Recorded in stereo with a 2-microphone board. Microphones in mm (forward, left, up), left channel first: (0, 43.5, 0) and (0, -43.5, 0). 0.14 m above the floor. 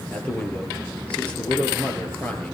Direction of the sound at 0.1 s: 15° left (ahead or behind).